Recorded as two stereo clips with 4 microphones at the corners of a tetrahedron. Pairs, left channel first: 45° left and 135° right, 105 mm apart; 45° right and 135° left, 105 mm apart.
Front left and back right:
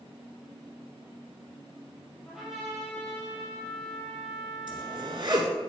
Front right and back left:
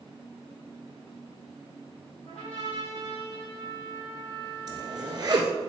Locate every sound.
2.2 s a trumpet: 45° right, 4 m
4.7 s a zipper: straight behind, 1.3 m